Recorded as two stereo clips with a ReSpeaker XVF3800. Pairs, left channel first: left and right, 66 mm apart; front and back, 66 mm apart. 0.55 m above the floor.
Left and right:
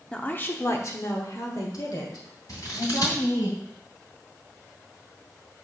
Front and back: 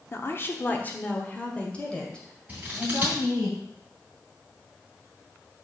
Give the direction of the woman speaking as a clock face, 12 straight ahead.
11 o'clock.